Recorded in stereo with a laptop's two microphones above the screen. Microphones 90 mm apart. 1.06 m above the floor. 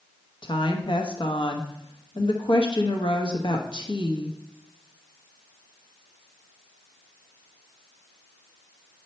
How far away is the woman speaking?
About 1.0 m.